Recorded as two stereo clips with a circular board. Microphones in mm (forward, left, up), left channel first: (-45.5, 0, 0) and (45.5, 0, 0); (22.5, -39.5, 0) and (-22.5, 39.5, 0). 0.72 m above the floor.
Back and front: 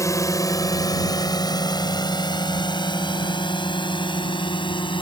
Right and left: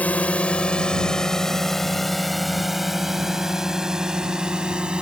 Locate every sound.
0.0 s a drone: 130° right; by 5.0 s 160° right